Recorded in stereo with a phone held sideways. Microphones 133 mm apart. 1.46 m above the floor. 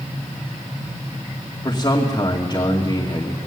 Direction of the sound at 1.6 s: 30° left (ahead or behind).